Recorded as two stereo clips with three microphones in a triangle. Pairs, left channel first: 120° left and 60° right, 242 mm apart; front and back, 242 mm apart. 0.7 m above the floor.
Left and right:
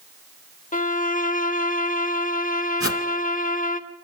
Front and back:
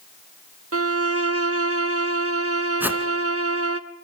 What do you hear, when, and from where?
0.7 s a violin: 170° left, 0.7 m
2.8 s a whoosh: 100° left, 1.2 m